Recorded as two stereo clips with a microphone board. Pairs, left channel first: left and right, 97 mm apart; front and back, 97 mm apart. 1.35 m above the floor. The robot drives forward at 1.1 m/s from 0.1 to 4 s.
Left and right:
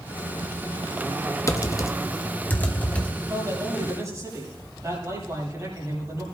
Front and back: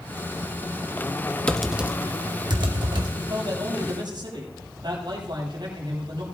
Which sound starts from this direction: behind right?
A man speaking, at 3.2 s.